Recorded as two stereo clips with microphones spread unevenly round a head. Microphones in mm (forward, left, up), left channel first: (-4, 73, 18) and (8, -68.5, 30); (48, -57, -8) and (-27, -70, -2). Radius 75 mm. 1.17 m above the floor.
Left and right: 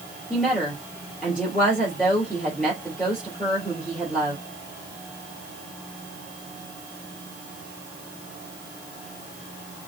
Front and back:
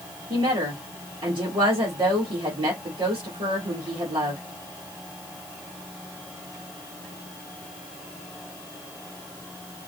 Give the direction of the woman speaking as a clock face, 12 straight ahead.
6 o'clock.